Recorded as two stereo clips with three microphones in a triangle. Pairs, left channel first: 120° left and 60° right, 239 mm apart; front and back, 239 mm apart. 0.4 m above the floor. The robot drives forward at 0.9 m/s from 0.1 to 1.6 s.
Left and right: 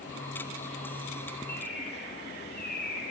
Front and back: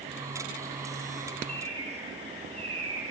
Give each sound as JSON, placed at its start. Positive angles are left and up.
{"t": 1.5, "sound": "a bird", "azimuth_deg": 170, "distance_m": 4.5}